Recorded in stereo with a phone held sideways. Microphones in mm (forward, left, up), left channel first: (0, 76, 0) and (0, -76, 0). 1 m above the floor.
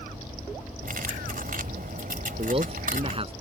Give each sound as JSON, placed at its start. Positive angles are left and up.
{"t": 0.8, "sound": "cutlery clinking", "side_deg": -70}
{"t": 2.4, "sound": "a man speaking", "side_deg": -40}